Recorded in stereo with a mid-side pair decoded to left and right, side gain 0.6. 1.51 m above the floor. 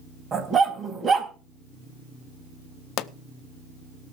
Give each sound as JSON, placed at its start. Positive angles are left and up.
{"t": 0.3, "sound": "a dog barking", "azimuth_deg": -35, "distance_m": 4.0}
{"t": 3.0, "sound": "a pop", "azimuth_deg": 65, "distance_m": 0.7}